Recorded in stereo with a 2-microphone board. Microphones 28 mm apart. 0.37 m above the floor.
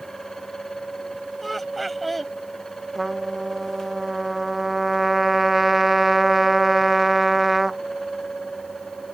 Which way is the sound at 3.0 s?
10° right (ahead or behind).